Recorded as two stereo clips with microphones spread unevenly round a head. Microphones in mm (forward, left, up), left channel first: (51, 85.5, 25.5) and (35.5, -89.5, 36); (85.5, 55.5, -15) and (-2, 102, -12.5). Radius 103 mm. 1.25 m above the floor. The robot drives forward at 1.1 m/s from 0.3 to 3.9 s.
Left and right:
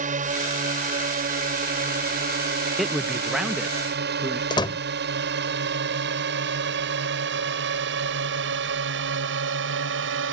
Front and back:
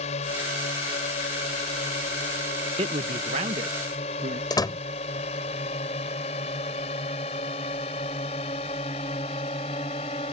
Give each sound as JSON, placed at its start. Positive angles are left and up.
{"t": 0.0, "sound": "a drone", "azimuth_deg": -50}
{"t": 2.8, "sound": "a man speaking", "azimuth_deg": 175}
{"t": 4.5, "sound": "a door slam", "azimuth_deg": 20}